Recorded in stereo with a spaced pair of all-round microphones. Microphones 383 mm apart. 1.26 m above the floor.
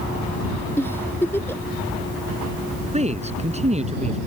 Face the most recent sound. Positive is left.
turn(degrees=-15)  # may be behind; listen again after turning